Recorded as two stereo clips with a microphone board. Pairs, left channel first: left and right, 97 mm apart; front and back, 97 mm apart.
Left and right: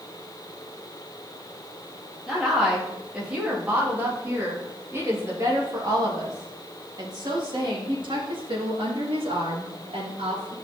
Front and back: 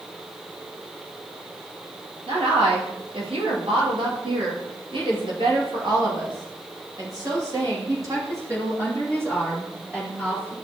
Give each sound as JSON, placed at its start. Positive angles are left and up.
{"t": 2.3, "sound": "a woman speaking", "azimuth_deg": -175, "distance_m": 3.5}